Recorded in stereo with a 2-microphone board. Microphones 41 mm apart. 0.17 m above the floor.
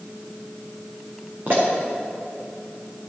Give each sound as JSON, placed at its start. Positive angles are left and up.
{"t": 1.5, "sound": "a pop", "side_deg": -45, "distance_m": 4.0}